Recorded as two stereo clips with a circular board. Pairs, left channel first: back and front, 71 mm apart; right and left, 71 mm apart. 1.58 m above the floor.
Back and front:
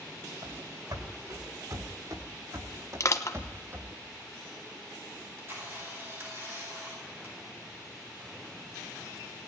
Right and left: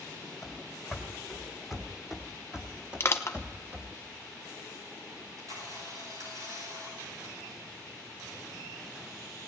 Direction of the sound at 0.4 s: 5° right.